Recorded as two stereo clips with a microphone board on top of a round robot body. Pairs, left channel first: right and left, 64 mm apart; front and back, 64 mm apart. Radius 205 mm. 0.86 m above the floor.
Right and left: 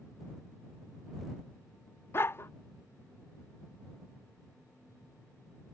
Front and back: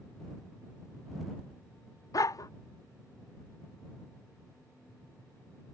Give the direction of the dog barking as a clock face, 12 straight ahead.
1 o'clock.